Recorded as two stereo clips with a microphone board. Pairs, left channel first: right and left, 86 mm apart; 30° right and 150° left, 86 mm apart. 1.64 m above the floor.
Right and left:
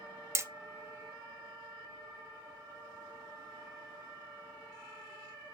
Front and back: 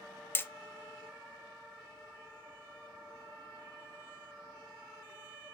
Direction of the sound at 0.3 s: 35° left.